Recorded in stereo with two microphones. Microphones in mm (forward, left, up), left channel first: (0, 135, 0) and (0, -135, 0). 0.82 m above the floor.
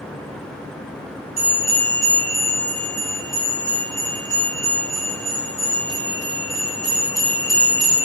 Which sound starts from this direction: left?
A bell, at 1.4 s.